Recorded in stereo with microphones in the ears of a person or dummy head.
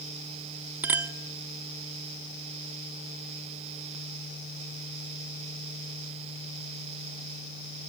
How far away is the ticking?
I don't hear ticking.